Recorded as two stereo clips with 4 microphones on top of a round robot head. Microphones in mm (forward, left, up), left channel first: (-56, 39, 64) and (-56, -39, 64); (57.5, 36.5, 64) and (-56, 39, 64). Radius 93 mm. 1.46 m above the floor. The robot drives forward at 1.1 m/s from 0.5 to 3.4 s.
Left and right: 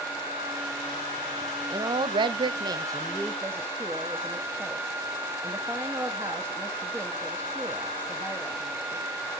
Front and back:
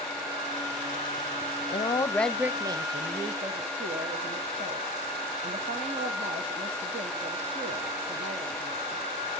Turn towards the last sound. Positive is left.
turn(degrees=-150)